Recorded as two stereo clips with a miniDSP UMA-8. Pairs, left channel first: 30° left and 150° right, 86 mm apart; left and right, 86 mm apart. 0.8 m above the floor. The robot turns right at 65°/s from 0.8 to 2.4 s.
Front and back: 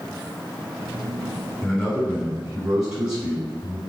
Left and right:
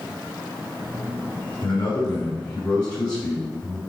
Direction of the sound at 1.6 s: 110° left.